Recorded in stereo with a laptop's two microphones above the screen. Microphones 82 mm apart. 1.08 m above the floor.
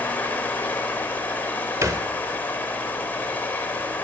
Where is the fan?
20° left (ahead or behind), 2.5 m.